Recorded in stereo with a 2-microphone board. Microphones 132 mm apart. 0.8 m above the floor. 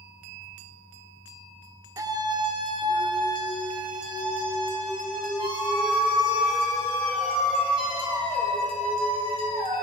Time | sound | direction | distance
2.0 | a scream | 25° right (ahead or behind) | 0.5 m